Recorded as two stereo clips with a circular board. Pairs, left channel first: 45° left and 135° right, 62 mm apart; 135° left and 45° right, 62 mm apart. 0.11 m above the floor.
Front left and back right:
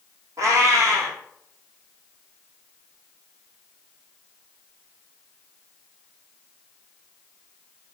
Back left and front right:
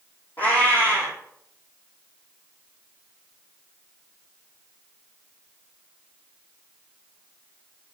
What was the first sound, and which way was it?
A cat meowing, 165° right.